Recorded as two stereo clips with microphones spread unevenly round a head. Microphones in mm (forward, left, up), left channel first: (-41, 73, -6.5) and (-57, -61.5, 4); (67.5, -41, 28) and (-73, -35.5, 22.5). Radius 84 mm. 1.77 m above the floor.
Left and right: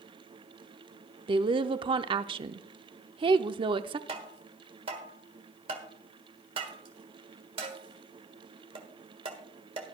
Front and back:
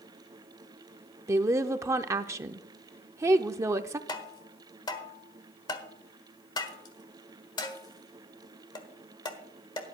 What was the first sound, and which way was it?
A woman speaking, 120° right.